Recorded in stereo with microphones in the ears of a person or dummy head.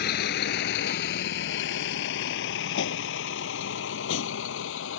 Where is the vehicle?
65° left (ahead or behind); by 5.0 s 80° left.